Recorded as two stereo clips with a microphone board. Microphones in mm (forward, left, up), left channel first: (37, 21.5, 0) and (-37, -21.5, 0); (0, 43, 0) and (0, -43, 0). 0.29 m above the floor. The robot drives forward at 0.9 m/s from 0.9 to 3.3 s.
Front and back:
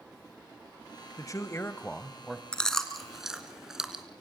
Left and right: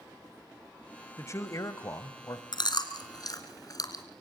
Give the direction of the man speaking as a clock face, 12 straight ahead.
10 o'clock.